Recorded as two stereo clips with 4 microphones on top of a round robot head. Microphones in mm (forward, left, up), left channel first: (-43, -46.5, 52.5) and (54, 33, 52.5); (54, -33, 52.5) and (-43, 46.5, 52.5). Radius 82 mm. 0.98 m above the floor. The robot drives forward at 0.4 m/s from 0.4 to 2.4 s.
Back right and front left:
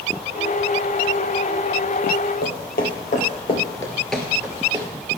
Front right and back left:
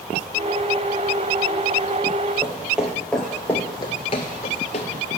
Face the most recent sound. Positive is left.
turn(degrees=-10)